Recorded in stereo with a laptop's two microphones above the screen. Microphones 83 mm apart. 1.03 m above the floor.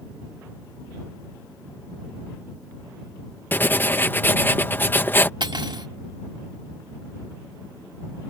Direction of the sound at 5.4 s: 65° right (ahead or behind).